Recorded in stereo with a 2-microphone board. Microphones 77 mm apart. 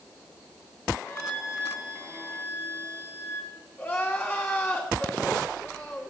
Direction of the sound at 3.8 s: 30° left (ahead or behind).